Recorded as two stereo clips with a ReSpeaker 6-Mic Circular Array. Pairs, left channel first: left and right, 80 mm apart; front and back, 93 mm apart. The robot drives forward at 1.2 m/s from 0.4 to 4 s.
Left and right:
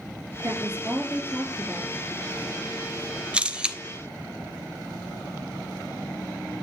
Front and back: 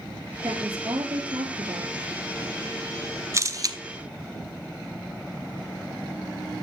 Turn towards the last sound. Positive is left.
turn(degrees=-170)